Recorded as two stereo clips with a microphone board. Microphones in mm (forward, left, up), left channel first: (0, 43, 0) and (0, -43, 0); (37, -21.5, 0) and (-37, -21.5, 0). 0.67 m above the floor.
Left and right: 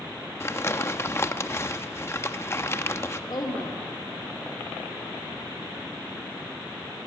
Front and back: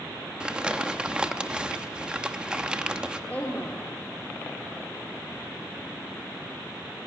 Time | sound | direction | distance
0.4 | crumpling | 115° left | 0.9 m
3.3 | a woman speaking | 70° left | 2 m